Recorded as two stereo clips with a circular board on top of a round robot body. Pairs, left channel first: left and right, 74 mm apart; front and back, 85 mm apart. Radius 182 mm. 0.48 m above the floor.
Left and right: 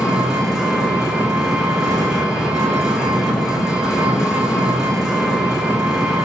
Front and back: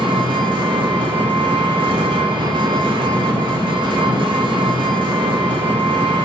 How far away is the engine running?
About 0.7 m.